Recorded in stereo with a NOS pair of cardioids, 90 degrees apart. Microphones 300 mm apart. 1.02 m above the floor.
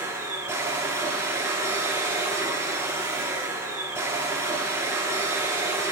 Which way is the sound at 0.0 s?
10° right.